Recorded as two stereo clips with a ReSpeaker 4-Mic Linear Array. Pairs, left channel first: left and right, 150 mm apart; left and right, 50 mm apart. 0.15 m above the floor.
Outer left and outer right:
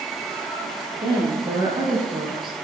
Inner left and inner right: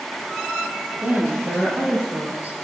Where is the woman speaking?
30° right (ahead or behind), 4 m.